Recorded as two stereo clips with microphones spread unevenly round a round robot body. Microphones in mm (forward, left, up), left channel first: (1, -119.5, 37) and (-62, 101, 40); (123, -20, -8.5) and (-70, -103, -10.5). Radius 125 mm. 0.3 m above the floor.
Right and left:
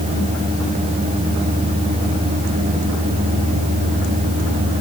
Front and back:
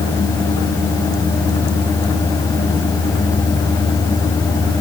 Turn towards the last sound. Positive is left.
No sound to turn to.